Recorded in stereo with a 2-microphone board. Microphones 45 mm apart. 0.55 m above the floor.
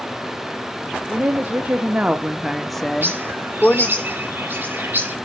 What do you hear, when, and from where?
1.1 s a woman speaking: 40° right (ahead or behind), 1.5 m; by 4.0 s 35° left (ahead or behind), 1.4 m
3.0 s a bird: 45° right (ahead or behind), 2.5 m